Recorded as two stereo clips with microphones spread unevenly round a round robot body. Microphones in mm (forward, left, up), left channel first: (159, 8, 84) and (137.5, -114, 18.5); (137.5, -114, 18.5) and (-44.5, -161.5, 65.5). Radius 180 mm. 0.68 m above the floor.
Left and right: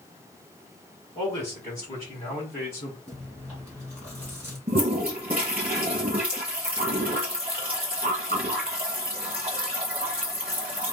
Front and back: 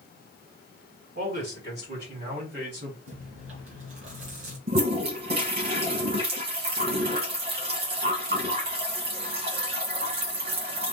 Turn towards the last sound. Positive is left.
turn(degrees=-175)